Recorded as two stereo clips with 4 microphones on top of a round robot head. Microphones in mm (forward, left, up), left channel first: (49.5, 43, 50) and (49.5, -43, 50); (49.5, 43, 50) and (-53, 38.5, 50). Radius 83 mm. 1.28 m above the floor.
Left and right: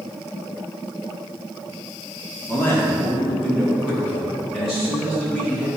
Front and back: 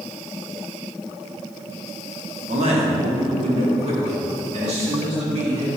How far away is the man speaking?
About 2.5 m.